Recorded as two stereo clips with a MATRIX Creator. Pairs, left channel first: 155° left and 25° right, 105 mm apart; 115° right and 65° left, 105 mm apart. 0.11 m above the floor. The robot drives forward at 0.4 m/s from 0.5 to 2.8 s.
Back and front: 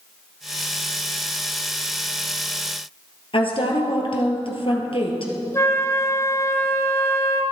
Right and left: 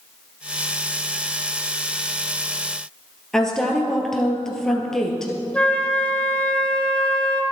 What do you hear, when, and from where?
3.3 s a woman speaking: 165° left, 2.5 m
5.5 s a flute: straight behind, 1.8 m